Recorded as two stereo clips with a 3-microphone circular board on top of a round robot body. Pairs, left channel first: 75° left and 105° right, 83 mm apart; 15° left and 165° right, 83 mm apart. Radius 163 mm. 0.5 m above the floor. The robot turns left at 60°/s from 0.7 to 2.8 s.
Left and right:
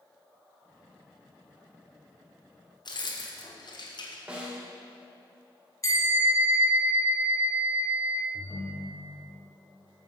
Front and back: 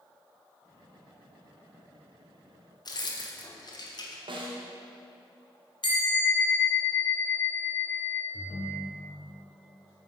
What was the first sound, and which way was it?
Keys jangling, 50° left.